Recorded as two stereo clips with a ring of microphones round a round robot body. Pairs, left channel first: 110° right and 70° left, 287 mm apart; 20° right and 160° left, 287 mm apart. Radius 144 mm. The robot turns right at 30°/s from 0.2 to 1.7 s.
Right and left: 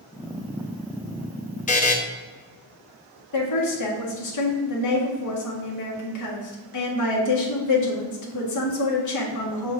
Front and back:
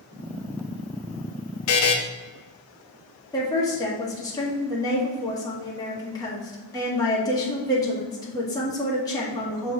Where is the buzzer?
50° right, 0.9 m.